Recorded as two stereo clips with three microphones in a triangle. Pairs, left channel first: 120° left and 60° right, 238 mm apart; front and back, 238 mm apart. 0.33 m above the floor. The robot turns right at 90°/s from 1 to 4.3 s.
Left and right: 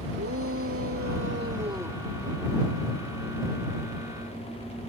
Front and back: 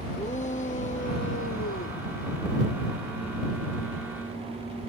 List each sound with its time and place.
0.2 s a shout: 55° right; by 2.0 s 35° left